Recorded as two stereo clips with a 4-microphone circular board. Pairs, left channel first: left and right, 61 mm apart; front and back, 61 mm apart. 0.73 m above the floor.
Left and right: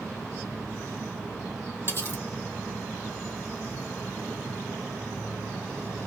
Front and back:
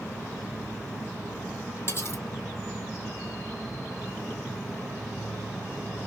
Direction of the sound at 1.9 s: 40° left.